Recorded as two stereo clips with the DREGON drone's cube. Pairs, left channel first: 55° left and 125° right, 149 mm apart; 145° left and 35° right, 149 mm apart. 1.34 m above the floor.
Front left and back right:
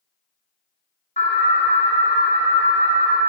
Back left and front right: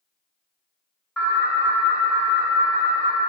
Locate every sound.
1.2 s an alarm: 60° left, 1.5 m